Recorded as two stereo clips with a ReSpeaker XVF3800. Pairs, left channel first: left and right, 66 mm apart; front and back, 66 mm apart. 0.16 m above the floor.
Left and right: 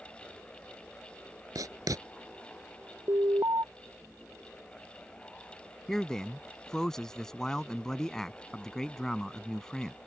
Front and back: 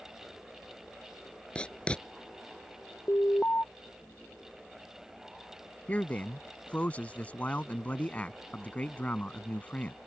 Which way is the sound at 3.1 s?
60° right.